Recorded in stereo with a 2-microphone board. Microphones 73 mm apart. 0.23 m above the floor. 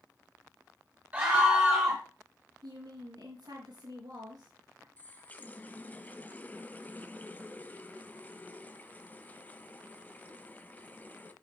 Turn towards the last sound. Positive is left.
turn(degrees=25)  # may be behind; listen again after turning